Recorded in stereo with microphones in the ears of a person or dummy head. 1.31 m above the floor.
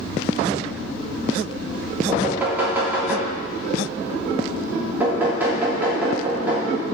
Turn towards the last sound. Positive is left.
turn(degrees=-10)  # may be behind; listen again after turning